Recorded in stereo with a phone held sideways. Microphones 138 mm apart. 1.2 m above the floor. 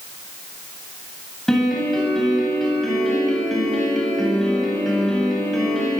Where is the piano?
Centre (ahead or behind), 9 m.